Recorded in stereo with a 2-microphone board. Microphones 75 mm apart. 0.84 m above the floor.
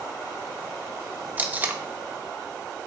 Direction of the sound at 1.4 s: 25° right (ahead or behind).